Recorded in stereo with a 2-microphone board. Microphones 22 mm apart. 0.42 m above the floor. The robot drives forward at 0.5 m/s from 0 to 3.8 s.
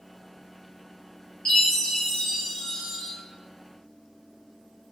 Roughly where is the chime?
Left.